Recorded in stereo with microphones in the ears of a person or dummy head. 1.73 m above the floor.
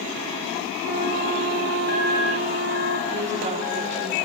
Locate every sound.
0.8 s a flute: 60° right (ahead or behind), 1.7 m
3.1 s a woman speaking: 35° right (ahead or behind), 3.5 m